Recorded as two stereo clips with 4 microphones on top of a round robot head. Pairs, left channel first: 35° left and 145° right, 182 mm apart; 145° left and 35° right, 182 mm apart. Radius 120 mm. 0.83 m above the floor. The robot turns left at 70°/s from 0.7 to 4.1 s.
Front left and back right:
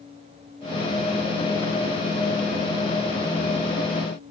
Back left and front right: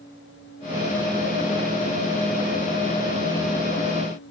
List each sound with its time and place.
Only background noise.